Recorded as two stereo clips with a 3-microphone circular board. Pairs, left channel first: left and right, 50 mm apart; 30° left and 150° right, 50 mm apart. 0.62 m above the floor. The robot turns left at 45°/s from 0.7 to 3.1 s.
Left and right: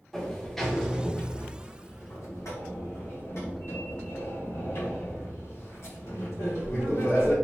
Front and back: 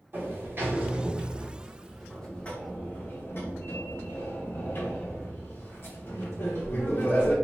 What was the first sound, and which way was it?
A sliding door, 175° left.